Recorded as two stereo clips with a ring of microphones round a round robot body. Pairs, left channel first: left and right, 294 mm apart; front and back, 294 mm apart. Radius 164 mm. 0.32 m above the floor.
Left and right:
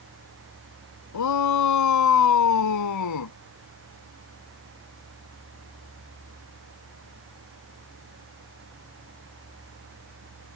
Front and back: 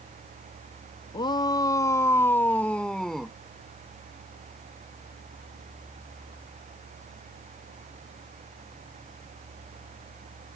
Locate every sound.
1.1 s a shout: 75° left; by 3.3 s 90° left